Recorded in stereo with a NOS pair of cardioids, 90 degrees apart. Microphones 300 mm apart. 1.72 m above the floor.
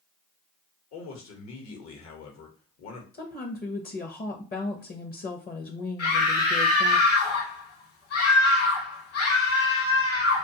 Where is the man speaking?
70° left, 1.0 m.